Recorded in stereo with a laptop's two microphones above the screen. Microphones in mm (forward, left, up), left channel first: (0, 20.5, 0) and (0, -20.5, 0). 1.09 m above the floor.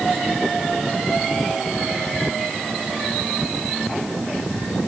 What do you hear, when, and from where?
Only background noise.